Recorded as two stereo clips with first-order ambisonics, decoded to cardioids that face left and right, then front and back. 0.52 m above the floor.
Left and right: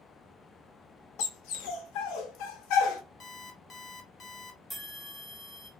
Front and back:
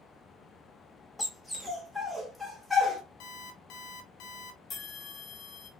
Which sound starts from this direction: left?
A dog barking, at 1.2 s.